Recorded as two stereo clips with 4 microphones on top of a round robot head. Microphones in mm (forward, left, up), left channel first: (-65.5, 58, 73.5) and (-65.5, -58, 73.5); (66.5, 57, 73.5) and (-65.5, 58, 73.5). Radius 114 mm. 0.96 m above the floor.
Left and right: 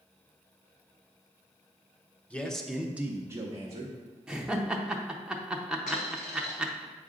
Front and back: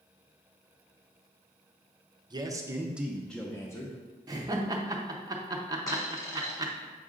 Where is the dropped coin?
60° left, 1.7 m.